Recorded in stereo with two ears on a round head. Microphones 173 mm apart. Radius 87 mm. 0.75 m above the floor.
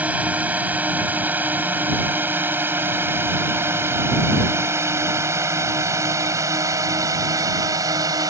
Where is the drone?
10° right (ahead or behind); by 8.3 s 20° right (ahead or behind).